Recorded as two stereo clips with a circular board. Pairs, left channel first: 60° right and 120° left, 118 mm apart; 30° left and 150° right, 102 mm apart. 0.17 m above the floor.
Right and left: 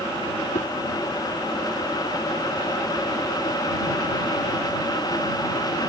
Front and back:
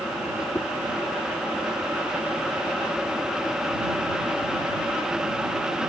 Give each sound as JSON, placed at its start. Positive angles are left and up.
{"t": 0.5, "sound": "a whoosh", "azimuth_deg": -35}